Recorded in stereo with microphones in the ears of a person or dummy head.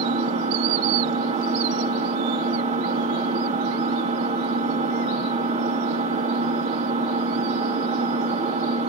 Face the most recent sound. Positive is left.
turn(degrees=-35)  # may be behind; listen again after turning